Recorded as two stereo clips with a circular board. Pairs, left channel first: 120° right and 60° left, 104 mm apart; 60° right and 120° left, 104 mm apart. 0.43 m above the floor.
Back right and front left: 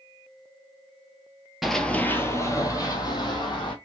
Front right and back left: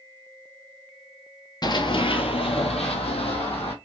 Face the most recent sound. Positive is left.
turn(degrees=-80)